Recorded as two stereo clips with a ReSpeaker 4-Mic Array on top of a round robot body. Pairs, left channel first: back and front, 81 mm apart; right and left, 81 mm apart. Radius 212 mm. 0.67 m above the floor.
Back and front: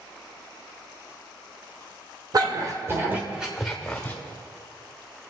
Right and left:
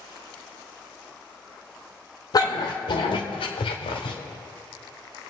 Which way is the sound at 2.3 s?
45° right.